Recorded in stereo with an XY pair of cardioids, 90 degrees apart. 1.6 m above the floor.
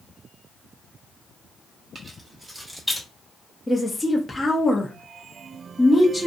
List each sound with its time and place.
1.9 s keys jangling: 40° right, 1.4 m; by 3.1 s straight ahead, 1.3 m
3.7 s a woman speaking: 10° left, 0.8 m